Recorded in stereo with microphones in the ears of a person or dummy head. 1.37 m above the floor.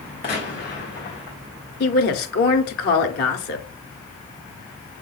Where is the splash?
No splash in this recording.